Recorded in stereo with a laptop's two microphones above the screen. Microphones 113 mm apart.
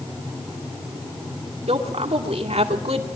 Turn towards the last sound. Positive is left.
turn(degrees=-80)